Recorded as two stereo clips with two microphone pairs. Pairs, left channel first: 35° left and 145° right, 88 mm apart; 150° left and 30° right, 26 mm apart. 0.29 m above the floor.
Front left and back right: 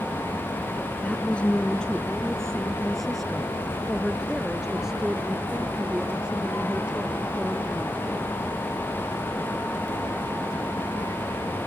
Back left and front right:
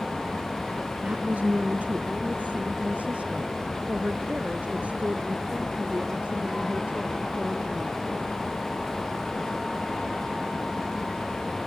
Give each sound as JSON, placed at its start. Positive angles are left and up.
{"t": 1.0, "sound": "a woman speaking", "azimuth_deg": -40}